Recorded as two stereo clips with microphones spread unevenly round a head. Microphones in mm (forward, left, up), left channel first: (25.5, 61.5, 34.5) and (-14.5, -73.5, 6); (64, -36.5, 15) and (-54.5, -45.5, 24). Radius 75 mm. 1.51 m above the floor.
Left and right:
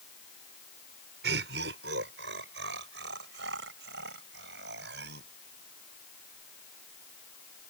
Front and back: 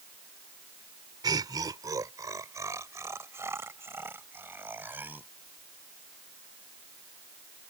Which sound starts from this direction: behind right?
Laughter, at 1.2 s.